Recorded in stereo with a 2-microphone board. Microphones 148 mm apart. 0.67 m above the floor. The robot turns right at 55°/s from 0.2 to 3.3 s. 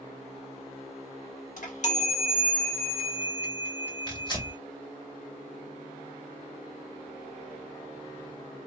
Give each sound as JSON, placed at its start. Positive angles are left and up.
{"t": 1.6, "sound": "a chime", "azimuth_deg": 100, "distance_m": 1.2}
{"t": 4.1, "sound": "tearing paper", "side_deg": 30, "distance_m": 2.5}